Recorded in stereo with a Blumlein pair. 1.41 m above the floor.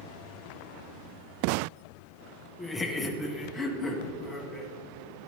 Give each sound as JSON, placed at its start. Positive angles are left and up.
{"t": 2.6, "sound": "laughter", "azimuth_deg": 15, "distance_m": 1.2}